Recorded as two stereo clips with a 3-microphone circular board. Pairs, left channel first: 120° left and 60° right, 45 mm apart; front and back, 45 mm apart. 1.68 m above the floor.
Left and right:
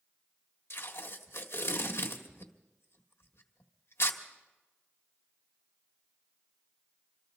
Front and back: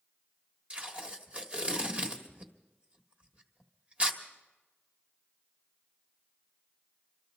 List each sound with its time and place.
0.7 s tape being pulled: 120° left, 1.6 m